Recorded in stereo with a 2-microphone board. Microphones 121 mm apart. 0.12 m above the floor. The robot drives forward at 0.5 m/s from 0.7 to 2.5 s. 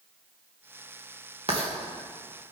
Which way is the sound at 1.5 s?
45° right (ahead or behind).